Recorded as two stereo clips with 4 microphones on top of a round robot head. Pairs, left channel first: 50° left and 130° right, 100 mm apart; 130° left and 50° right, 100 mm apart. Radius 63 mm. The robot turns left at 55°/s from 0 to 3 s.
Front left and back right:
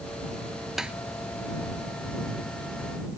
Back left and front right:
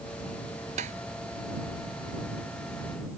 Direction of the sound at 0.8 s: 45° right.